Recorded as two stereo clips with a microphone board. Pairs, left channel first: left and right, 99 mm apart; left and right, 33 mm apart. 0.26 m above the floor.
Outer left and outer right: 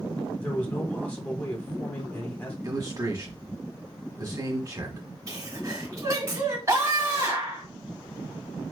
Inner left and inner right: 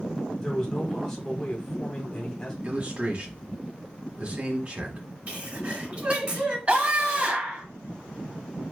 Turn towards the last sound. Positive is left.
turn(degrees=-35)  # may be behind; listen again after turning